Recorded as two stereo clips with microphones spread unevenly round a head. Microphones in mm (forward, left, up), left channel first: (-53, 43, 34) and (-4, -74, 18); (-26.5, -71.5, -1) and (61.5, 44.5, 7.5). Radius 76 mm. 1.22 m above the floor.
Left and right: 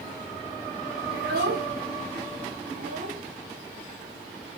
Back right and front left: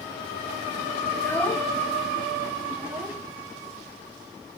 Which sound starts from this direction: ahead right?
A child speaking, at 1.1 s.